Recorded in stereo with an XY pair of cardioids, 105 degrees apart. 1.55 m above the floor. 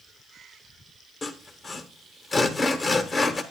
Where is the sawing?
35° left, 1.3 m.